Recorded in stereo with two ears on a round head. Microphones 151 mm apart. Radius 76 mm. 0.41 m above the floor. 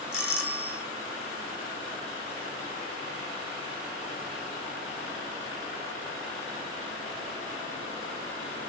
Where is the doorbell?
5° right (ahead or behind), 2.5 m.